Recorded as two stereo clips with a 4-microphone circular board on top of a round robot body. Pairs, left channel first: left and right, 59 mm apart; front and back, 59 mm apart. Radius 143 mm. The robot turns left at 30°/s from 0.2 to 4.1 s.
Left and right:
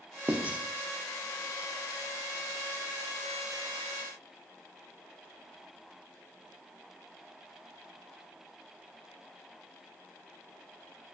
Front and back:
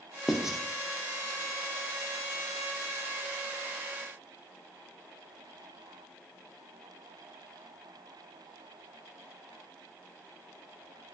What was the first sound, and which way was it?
Writing, 95° right.